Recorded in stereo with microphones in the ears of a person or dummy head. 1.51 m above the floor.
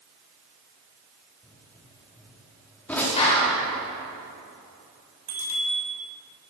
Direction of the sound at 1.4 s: 15° left (ahead or behind).